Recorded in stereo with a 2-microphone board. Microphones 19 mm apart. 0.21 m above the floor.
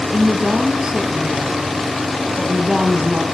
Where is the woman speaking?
45° right (ahead or behind), 5 m.